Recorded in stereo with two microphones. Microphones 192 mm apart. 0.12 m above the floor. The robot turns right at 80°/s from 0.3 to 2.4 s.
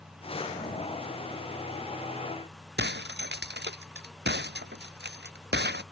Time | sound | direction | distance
2.8 | breaking glass | 60° right (ahead or behind) | ?